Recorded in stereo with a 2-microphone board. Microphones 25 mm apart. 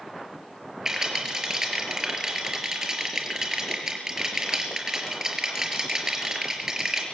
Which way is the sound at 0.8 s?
25° right (ahead or behind).